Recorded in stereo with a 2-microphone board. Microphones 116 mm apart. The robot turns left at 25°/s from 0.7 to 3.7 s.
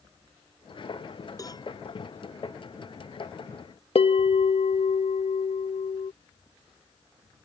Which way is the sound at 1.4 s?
30° left (ahead or behind).